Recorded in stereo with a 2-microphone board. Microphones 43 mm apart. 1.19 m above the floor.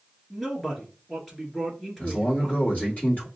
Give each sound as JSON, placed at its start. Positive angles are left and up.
{"t": 0.3, "sound": "a man speaking", "side_deg": 5, "distance_m": 2.5}
{"t": 2.0, "sound": "a man speaking", "side_deg": 40, "distance_m": 2.5}